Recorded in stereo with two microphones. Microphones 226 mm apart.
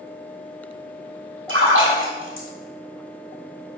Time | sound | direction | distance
1.5 | a splash | 75° right (ahead or behind) | 1.5 m